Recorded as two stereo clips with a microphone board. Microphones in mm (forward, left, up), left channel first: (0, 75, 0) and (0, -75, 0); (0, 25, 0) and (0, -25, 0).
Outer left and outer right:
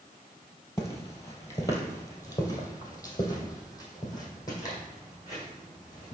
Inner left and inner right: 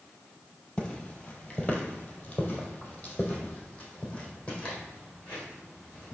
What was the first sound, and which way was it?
Footsteps, 20° left (ahead or behind).